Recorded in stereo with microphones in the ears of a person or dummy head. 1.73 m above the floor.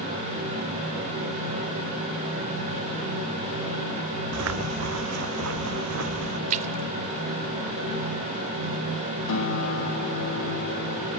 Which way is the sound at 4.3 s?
70° right (ahead or behind).